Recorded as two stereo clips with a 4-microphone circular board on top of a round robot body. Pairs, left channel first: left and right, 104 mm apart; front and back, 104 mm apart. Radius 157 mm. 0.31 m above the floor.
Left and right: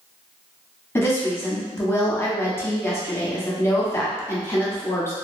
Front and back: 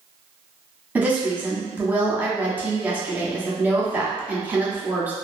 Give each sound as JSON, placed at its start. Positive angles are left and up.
{"t": 0.9, "sound": "a woman speaking", "azimuth_deg": 125, "distance_m": 1.0}